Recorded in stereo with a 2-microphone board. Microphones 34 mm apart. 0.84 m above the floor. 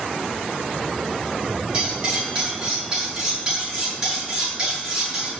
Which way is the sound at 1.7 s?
25° right (ahead or behind).